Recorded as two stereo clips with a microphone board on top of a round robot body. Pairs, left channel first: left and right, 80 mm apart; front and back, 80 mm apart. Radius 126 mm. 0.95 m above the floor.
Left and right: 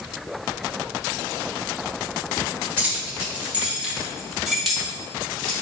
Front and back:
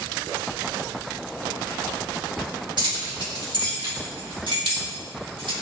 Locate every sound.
2.8 s keys jangling: 155° right, 2 m; by 5.5 s 175° left, 2.5 m